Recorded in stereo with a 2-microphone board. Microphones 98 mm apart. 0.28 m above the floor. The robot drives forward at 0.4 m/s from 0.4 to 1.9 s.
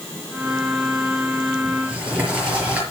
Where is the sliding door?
15° right (ahead or behind), 5.5 m.